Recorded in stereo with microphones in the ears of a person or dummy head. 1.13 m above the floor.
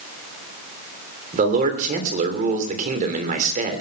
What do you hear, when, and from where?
1.3 s a man speaking: 45° right (ahead or behind), 3 m